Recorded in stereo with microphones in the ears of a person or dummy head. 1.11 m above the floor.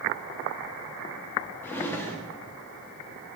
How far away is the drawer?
About 0.7 m.